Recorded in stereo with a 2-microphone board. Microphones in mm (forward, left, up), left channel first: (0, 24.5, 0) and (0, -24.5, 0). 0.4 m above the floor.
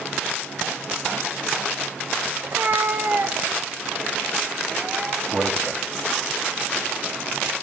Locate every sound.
2.4 s a cat meowing: 55° right (ahead or behind), 0.9 m; by 5.2 s 25° right (ahead or behind), 2.5 m
5.3 s a man speaking: 25° right (ahead or behind), 2.5 m